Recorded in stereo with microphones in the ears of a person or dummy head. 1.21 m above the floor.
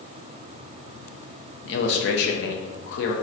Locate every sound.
1.6 s a man speaking: 55° left (ahead or behind), 0.6 m